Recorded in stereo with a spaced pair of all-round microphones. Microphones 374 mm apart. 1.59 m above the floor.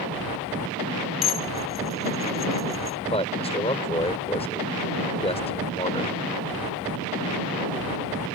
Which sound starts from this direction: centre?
A man speaking, at 3.1 s.